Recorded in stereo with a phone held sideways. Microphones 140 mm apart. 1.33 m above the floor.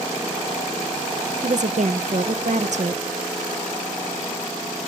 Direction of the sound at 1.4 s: 55° right (ahead or behind).